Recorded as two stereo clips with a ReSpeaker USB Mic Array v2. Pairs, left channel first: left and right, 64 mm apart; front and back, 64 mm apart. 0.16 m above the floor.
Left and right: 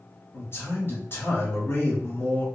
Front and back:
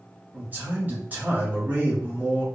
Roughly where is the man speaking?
Behind left.